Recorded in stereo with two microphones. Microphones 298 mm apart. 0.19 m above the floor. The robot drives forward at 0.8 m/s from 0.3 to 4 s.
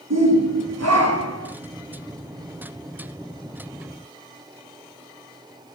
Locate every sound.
0.1 s a shout: 60° right (ahead or behind), 3 m; by 1.5 s 50° right (ahead or behind), 3 m